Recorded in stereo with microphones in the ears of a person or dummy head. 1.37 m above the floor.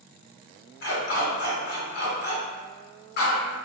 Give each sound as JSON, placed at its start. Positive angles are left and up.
{"t": 0.8, "sound": "a dog barking", "side_deg": 60, "distance_m": 2.0}